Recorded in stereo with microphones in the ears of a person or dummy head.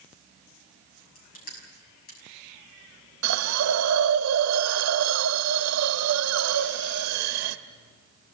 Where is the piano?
I don't hear a piano.